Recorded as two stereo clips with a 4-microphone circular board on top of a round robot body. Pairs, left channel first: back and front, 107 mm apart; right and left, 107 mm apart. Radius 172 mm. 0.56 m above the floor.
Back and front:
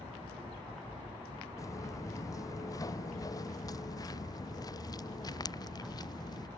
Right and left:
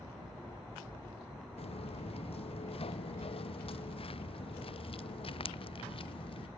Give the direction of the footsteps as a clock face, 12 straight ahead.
4 o'clock.